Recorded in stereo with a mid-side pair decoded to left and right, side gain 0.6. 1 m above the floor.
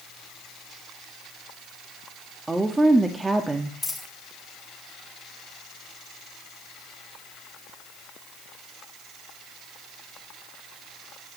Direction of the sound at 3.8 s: 10° left.